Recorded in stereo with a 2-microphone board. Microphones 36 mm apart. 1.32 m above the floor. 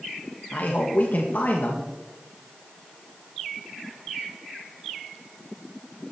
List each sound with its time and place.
0.5 s a man speaking: 50° left (ahead or behind), 1.9 m